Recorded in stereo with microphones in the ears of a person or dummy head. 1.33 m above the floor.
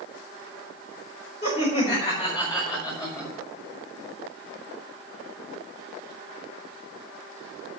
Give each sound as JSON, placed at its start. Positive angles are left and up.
{"t": 1.4, "sound": "laughter", "side_deg": 40, "distance_m": 4.5}